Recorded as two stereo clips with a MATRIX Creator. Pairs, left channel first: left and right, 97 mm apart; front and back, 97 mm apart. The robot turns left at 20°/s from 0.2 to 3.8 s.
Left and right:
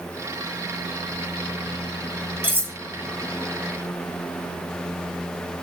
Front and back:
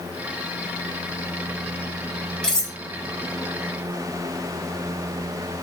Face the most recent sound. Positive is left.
turn(degrees=-95)